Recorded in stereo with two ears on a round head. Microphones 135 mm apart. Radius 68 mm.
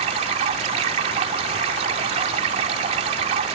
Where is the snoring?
No snoring in this recording.